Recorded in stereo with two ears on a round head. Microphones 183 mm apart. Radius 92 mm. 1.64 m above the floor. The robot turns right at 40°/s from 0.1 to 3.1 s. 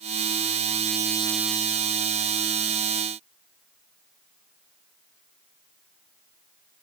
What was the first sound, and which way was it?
Only background noise.